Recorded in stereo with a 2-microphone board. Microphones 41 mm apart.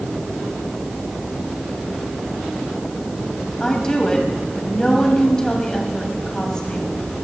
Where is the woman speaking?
20° left (ahead or behind), 2 m.